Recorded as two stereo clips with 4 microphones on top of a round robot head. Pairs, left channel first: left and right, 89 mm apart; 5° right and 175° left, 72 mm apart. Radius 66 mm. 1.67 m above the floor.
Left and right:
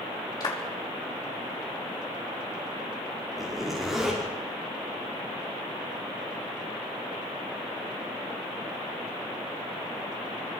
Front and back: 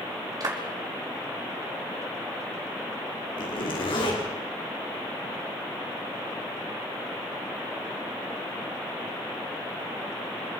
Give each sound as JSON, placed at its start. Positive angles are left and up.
{"t": 0.4, "sound": "a clap", "azimuth_deg": 135, "distance_m": 5.0}
{"t": 3.4, "sound": "a zipper", "azimuth_deg": 0, "distance_m": 5.5}